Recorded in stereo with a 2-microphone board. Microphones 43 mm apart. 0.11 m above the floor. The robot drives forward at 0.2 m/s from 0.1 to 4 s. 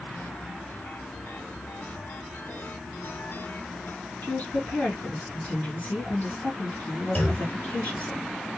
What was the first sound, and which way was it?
A woman speaking, 35° left (ahead or behind).